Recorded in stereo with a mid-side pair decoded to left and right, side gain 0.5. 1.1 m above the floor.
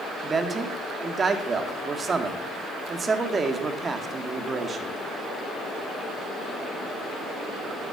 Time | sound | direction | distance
0.2 | a man speaking | 30° right | 2 m